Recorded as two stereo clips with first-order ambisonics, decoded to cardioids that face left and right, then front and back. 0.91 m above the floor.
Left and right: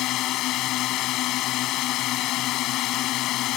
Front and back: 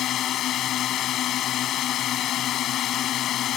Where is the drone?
50° left.